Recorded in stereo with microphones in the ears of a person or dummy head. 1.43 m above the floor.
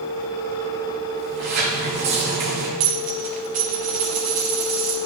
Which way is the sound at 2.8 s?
30° right (ahead or behind).